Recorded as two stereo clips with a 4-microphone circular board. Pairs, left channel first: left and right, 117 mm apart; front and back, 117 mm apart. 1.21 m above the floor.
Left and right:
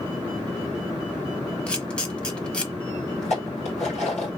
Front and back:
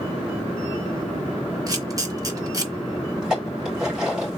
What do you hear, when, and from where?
1.7 s a camera shutter: 165° left, 1.2 m
3.2 s dishes clattering: 100° left, 3 m